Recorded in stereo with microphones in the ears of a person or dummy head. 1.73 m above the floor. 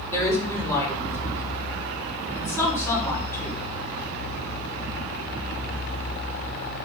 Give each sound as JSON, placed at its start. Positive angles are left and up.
{"t": 0.1, "sound": "a woman speaking", "side_deg": 15, "distance_m": 5.5}